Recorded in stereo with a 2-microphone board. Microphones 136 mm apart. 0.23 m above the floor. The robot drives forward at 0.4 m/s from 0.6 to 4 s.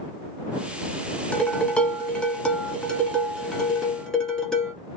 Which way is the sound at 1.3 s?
10° left (ahead or behind).